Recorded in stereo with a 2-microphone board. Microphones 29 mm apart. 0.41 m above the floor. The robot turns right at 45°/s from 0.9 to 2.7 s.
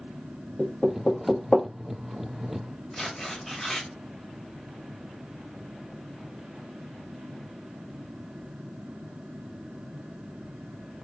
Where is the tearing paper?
10° left (ahead or behind), 1.2 m.